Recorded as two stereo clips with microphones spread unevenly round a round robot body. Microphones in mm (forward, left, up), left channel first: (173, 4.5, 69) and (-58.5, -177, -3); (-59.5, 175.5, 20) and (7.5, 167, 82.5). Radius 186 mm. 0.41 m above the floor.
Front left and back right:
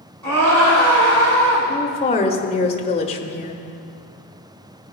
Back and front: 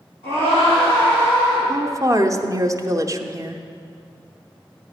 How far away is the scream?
About 5 m.